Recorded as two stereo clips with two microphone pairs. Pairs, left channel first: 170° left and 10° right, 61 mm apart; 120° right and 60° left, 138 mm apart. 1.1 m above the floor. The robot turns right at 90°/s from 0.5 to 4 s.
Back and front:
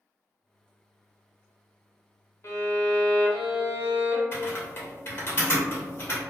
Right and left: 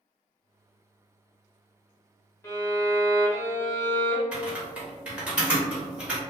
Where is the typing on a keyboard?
135° left, 0.8 m.